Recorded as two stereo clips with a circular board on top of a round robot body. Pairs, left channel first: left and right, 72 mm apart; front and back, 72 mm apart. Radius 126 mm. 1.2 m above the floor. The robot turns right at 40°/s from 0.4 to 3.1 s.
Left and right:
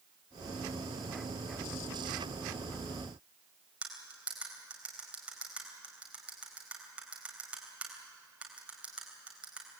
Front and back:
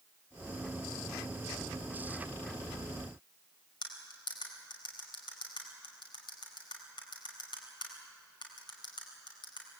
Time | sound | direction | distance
3.8 | cutlery clinking | 15° right | 4 m